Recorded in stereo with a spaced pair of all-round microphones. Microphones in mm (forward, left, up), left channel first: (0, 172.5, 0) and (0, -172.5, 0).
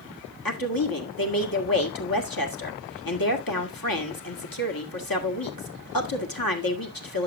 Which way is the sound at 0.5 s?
80° left.